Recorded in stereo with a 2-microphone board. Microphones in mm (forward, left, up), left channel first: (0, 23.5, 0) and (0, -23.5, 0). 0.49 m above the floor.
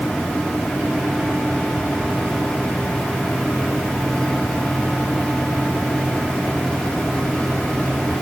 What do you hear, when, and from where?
Only background noise.